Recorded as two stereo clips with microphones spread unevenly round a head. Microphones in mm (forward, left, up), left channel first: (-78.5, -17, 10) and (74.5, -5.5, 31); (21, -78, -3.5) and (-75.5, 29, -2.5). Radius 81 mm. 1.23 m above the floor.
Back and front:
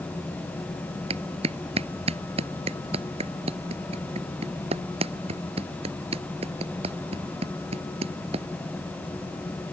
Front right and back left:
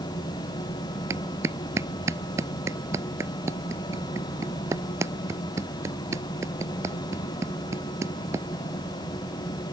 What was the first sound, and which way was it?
A clap, 60° left.